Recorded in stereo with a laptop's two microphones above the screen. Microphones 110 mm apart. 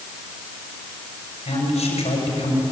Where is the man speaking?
80° left, 6 m.